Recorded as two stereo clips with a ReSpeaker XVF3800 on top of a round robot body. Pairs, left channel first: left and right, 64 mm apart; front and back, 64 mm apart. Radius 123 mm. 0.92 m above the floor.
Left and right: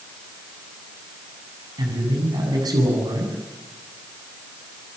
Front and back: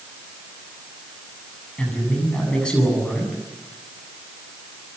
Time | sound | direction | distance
1.8 | a man speaking | 75° right | 7.5 m